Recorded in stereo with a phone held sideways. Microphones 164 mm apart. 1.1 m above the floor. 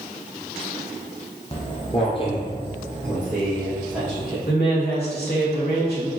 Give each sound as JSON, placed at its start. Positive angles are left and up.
{"t": 1.5, "sound": "footsteps", "side_deg": 35, "distance_m": 1.9}
{"t": 4.5, "sound": "a woman speaking", "side_deg": 85, "distance_m": 1.6}